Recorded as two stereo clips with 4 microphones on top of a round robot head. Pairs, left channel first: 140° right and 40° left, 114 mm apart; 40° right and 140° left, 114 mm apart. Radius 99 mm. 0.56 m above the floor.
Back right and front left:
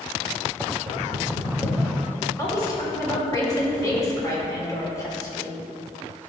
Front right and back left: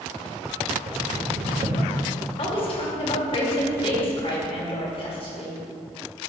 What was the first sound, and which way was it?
Knocking, 160° left.